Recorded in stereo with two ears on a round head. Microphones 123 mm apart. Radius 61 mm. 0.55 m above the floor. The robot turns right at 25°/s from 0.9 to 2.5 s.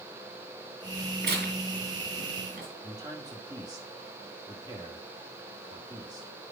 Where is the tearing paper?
75° right (ahead or behind), 3 m.